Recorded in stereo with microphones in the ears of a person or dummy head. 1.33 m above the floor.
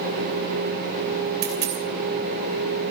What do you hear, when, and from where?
1.4 s a dropped coin: 50° right (ahead or behind), 2.5 m